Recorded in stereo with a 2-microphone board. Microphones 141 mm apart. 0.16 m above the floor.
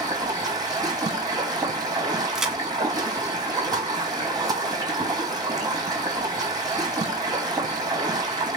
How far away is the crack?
About 0.6 m.